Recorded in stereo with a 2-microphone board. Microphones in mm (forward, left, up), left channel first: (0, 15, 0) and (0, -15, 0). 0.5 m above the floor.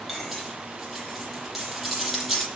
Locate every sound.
0.1 s cutlery clinking: 5° right (ahead or behind), 8.5 m